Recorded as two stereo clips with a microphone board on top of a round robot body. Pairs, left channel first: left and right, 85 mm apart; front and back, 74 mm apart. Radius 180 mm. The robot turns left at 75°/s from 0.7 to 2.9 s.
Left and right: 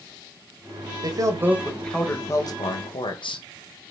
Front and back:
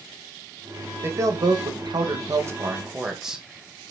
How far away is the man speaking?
About 2.5 m.